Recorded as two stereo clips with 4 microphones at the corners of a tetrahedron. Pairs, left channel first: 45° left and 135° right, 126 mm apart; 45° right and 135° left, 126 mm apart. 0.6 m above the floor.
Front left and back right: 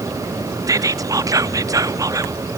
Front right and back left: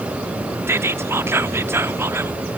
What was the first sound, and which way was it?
Whispering, 175° right.